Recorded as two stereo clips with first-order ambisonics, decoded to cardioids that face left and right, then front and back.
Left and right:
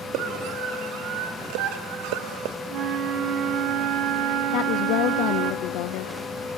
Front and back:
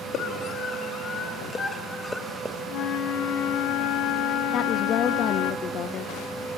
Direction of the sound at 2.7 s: 40° right.